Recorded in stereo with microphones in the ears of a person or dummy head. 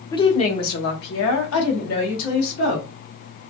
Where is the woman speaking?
25° left (ahead or behind), 0.5 m; by 2.9 s 80° left, 1.6 m.